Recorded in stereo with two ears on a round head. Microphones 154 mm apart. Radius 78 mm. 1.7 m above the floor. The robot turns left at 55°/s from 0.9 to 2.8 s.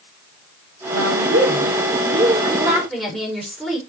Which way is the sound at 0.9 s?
75° right.